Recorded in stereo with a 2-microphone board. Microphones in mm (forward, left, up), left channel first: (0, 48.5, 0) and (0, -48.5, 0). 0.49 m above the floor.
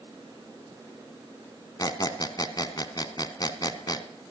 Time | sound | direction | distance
1.8 | a squeak | 45° left (ahead or behind) | 1.0 m